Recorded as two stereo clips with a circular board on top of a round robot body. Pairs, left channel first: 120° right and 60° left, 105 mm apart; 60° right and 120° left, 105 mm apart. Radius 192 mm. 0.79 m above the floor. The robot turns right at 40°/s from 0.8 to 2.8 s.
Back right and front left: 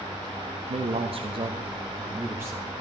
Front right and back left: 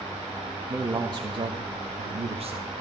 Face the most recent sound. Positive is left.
turn(degrees=140)